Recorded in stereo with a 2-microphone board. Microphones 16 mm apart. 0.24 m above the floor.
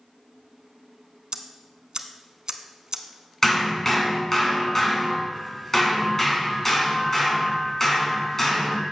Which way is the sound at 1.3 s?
45° right (ahead or behind).